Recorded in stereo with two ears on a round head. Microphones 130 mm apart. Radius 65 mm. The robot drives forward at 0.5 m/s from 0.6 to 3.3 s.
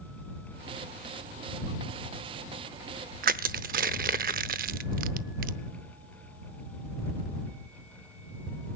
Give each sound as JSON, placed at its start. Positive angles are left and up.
{"t": 3.2, "sound": "crushing", "side_deg": -65, "distance_m": 0.7}